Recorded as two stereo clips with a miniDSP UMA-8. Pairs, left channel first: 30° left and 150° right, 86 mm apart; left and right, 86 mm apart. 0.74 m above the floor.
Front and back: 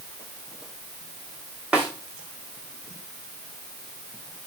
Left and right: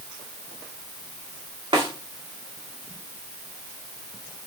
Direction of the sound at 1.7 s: 75° right.